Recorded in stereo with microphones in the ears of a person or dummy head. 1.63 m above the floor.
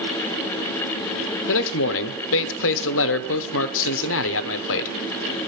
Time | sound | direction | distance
1.5 | a man speaking | 75° left (ahead or behind) | 0.9 m